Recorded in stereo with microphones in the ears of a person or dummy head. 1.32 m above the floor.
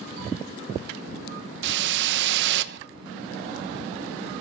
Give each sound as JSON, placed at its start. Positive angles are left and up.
{"t": 1.6, "sound": "a whoosh", "side_deg": -70, "distance_m": 1.1}